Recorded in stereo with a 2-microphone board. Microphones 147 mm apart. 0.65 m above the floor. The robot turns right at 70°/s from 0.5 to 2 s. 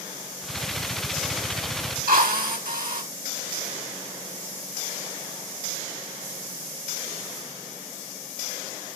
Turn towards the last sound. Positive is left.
turn(degrees=-80)